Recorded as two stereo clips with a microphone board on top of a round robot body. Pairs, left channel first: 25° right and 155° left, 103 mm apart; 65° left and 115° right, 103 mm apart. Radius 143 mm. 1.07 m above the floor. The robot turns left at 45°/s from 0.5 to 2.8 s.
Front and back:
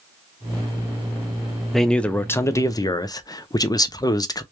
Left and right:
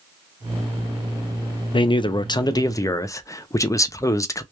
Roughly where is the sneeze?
I don't hear a sneeze.